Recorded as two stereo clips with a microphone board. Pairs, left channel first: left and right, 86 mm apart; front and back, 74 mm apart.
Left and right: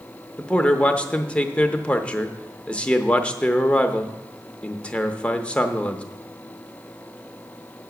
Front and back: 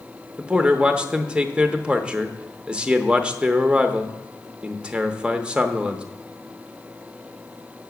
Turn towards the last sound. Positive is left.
turn(degrees=135)